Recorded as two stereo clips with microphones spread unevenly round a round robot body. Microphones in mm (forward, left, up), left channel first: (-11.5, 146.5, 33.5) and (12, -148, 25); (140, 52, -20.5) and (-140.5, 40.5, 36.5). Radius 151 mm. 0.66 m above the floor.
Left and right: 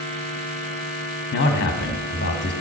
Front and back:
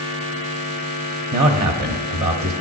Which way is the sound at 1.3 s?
145° left.